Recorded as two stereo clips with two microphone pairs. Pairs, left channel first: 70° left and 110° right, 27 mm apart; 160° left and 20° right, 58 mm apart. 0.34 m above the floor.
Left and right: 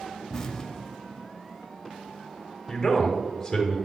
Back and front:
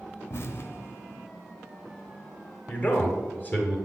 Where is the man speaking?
135° left, 1.3 m.